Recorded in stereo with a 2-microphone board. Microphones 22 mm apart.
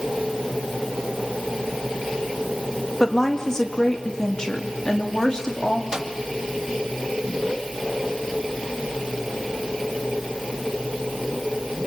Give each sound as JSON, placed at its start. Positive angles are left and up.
{"t": 3.0, "sound": "a woman speaking", "side_deg": 20, "distance_m": 2.5}
{"t": 5.9, "sound": "a microwave", "side_deg": -25, "distance_m": 1.6}